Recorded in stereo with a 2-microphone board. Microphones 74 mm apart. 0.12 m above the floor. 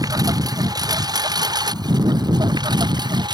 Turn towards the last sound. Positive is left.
turn(degrees=-70)  # may be behind; listen again after turning